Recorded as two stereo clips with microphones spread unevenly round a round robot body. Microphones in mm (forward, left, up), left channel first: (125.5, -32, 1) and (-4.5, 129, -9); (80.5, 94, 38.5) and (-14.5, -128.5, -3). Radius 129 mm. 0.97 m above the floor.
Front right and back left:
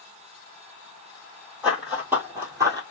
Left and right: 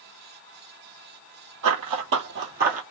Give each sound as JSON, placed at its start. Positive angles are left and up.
{"t": 1.6, "sound": "running footsteps", "azimuth_deg": -145, "distance_m": 1.6}